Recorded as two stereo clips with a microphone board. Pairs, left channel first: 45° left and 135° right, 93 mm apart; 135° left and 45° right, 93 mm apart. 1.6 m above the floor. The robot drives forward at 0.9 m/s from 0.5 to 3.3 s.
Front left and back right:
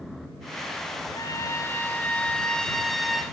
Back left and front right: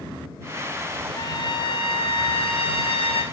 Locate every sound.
1.1 s a trumpet: 95° left, 1.8 m; by 3.2 s 135° left, 2.5 m